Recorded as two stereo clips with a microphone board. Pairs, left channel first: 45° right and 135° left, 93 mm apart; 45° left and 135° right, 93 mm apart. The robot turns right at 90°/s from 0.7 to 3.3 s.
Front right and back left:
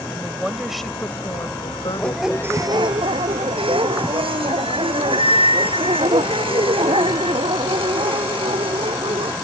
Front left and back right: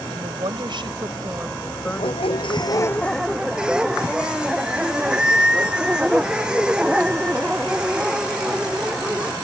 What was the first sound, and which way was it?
A woman speaking, 140° right.